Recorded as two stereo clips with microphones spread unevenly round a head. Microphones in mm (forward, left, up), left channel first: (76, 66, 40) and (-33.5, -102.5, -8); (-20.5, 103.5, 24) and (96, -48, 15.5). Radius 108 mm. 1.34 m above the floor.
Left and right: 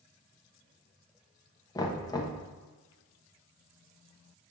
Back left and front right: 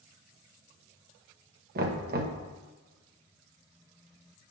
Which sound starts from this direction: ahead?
Knocking, at 1.8 s.